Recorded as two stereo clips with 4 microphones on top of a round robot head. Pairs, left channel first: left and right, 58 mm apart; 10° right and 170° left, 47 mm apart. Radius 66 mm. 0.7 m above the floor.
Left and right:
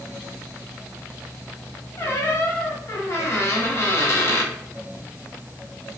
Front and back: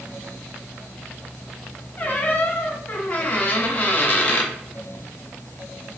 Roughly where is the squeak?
Ahead left.